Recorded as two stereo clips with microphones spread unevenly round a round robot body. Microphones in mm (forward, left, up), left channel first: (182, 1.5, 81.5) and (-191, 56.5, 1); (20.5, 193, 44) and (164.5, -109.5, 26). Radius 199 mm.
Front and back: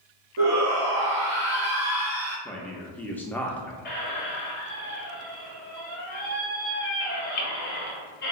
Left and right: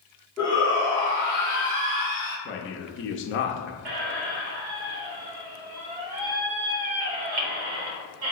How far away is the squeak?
About 1.0 m.